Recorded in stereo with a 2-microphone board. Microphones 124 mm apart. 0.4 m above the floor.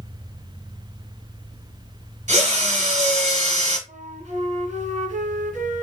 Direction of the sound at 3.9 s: 75° right (ahead or behind).